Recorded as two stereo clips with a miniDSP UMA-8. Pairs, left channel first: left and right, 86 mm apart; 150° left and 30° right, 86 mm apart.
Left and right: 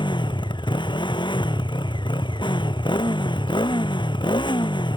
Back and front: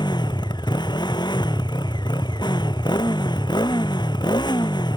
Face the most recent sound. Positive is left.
turn(degrees=115)